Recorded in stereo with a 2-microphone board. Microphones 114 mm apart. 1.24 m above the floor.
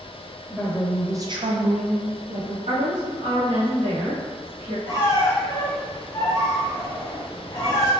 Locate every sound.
0.5 s a woman speaking: 5° right (ahead or behind), 1.3 m; by 2.6 s 45° right (ahead or behind), 1.2 m
2.7 s a woman speaking: 80° right, 0.9 m
4.9 s a squeak: 35° left (ahead or behind), 0.8 m